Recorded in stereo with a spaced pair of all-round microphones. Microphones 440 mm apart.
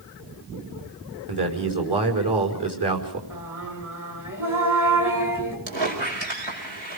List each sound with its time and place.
1.3 s a man speaking: 65° right (ahead or behind), 5 m
3.3 s singing: 45° right (ahead or behind), 6.5 m
5.7 s a squeak: 75° right (ahead or behind), 6 m